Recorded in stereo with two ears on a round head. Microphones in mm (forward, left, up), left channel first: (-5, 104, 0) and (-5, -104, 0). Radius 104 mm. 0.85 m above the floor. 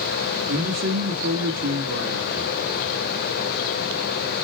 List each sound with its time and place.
0.5 s a man speaking: 45° right (ahead or behind), 1.4 m